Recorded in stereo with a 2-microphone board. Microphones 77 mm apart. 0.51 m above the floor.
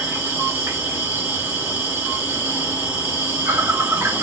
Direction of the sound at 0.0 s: 25° right (ahead or behind).